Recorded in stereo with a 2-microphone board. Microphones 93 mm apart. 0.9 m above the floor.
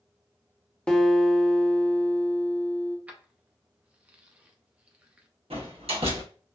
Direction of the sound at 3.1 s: 15° right (ahead or behind).